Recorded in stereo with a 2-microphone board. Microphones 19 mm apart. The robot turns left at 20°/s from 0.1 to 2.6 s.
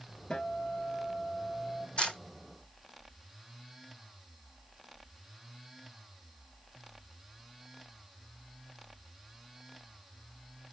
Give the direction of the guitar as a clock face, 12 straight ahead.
9 o'clock.